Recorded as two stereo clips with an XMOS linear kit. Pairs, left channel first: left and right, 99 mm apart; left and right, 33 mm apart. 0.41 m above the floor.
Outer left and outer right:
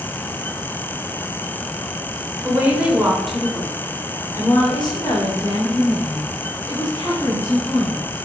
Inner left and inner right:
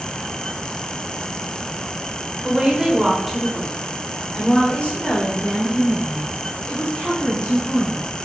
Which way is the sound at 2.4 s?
20° right (ahead or behind).